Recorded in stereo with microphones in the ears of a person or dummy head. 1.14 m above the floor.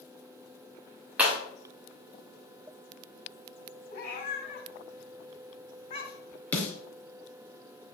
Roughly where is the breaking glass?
Centre.